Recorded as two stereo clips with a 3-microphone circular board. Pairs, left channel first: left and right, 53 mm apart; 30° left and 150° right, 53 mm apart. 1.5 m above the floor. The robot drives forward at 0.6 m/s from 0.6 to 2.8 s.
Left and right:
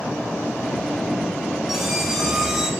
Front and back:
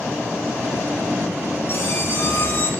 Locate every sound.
1.7 s a squeak: 5° right, 3 m